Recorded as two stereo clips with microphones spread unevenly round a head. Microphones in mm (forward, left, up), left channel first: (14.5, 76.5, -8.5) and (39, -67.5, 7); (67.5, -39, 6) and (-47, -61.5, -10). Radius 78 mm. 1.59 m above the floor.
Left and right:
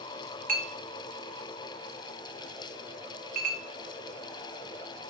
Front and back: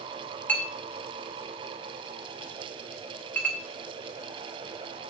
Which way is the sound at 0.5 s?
60° right.